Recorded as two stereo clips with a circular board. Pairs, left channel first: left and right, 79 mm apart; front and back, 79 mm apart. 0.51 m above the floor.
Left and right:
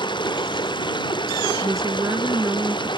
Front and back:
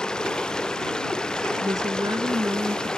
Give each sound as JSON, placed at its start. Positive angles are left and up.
{"t": 0.0, "sound": "running water", "azimuth_deg": 80}
{"t": 1.6, "sound": "a woman speaking", "azimuth_deg": -140}